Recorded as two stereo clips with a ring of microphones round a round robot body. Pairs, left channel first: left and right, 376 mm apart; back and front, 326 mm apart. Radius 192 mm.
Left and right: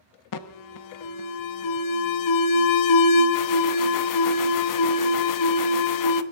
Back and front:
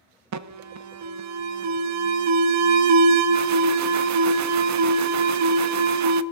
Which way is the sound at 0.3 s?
45° left.